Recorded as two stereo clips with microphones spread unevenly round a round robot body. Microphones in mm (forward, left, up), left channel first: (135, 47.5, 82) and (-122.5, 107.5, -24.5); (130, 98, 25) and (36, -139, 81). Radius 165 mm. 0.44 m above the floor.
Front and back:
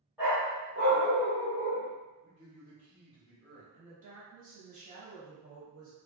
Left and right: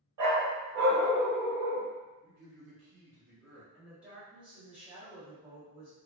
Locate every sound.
0.2 s a dog barking: 100° right, 0.9 m; by 1.9 s 10° left, 0.9 m
2.2 s a man speaking: 105° right, 1.1 m
3.7 s a woman speaking: 150° left, 1.4 m